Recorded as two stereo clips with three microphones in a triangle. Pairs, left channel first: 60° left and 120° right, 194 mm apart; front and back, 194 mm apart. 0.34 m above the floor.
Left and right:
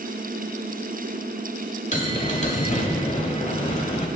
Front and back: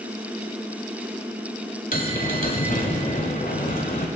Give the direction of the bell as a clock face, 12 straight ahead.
11 o'clock.